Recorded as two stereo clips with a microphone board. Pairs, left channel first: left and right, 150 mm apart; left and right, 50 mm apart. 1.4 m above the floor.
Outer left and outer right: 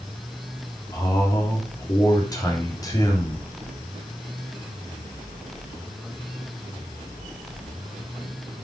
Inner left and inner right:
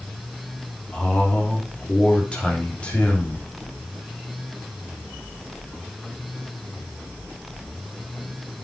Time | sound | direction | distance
0.9 | a man speaking | 25° left (ahead or behind) | 3.5 m